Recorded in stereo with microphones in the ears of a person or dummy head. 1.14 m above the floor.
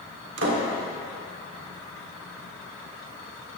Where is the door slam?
65° right (ahead or behind), 2.5 m.